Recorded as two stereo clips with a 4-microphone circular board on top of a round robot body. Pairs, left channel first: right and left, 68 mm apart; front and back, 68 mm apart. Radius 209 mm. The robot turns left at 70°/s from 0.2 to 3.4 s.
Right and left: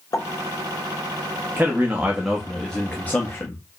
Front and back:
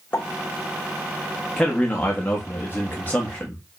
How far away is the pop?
About 1.5 m.